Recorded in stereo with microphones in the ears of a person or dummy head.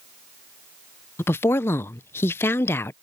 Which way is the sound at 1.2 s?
10° left (ahead or behind).